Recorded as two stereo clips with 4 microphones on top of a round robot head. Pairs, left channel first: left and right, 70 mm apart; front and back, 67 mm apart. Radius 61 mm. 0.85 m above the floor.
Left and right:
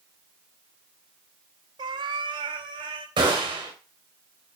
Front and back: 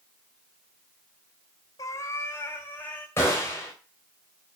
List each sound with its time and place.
1.8 s a cat meowing: 50° right, 0.8 m; by 3.1 s 70° right, 2.5 m
3.2 s a gunshot: 60° right, 3 m